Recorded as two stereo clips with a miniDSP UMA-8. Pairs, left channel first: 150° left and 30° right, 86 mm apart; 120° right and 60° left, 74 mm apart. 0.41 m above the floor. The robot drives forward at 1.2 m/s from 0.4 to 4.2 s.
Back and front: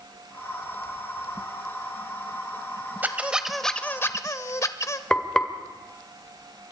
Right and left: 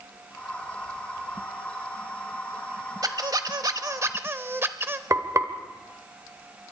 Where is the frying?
75° left, 1.9 m.